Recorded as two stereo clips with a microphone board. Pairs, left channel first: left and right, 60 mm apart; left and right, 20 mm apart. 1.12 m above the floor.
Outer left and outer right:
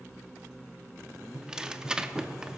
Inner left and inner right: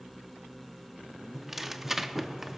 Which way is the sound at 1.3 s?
10° right (ahead or behind).